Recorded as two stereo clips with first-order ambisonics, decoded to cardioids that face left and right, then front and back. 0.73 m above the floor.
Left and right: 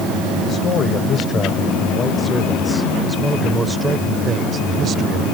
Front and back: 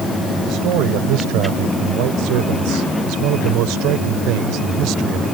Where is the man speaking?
145° left; by 5.2 s 145° right.